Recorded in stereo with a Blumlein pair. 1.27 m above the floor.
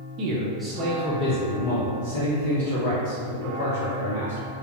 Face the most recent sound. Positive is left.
turn(degrees=70)